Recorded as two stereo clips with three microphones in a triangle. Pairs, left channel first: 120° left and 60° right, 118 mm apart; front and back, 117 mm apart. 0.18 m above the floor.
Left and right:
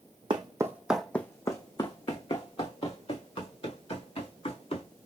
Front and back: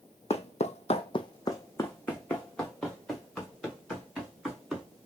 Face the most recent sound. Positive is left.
turn(degrees=95)